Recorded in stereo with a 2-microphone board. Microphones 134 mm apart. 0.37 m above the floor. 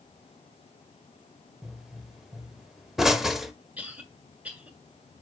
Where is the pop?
5° right (ahead or behind), 0.9 m.